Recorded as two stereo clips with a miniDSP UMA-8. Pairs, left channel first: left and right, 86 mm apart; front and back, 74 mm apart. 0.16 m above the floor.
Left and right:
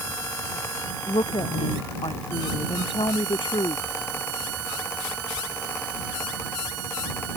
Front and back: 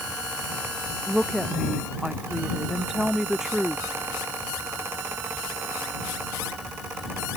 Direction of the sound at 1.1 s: 95° left.